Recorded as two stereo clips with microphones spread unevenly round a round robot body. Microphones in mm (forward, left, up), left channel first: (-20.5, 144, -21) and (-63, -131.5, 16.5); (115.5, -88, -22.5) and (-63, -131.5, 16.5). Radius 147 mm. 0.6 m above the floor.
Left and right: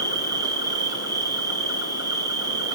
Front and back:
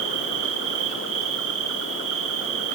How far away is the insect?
About 1.0 m.